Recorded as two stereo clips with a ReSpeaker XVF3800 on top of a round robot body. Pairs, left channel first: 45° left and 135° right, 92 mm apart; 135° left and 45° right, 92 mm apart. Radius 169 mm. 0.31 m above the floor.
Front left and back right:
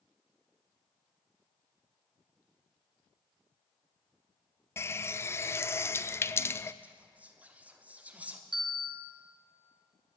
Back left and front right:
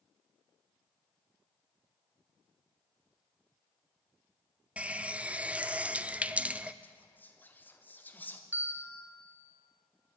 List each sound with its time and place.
4.8 s a running tap: 20° left, 0.5 m
6.8 s whispering: 175° left, 1.1 m
8.5 s a bell: 115° right, 2 m